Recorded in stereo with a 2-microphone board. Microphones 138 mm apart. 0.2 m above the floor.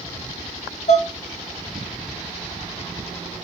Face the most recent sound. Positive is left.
turn(degrees=55)  # may be behind; listen again after turning